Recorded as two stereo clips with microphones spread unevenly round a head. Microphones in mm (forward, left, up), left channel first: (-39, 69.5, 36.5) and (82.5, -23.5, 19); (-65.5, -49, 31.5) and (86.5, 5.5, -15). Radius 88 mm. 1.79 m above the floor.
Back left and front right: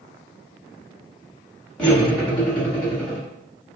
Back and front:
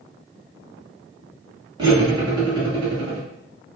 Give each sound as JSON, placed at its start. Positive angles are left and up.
{"t": 1.8, "sound": "cutlery clinking", "azimuth_deg": 85, "distance_m": 1.0}